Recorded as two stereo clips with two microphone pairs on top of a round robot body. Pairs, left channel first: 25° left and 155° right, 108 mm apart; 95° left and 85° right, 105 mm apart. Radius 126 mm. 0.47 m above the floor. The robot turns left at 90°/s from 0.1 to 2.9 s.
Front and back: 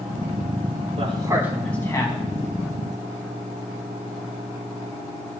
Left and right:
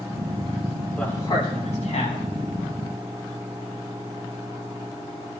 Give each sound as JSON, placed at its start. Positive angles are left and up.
{"t": 1.0, "sound": "a man speaking", "azimuth_deg": 175, "distance_m": 4.5}